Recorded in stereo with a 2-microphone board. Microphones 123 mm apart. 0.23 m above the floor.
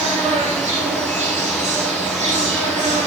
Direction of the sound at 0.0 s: 70° right (ahead or behind).